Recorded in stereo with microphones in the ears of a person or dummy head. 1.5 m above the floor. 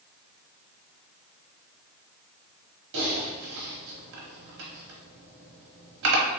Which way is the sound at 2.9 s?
70° right (ahead or behind).